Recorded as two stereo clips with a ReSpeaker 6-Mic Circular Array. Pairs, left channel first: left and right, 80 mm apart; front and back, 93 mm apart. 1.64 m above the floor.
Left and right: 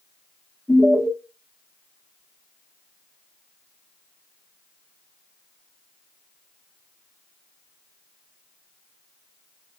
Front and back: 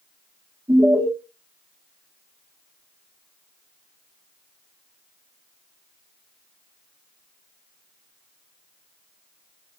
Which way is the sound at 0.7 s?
155° left.